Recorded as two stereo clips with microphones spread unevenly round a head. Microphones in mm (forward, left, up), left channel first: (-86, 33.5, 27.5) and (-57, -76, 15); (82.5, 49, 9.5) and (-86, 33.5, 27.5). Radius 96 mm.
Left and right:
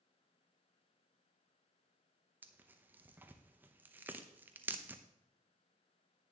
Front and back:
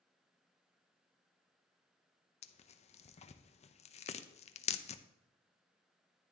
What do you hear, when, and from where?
2.4 s tearing paper: 15° right, 0.6 m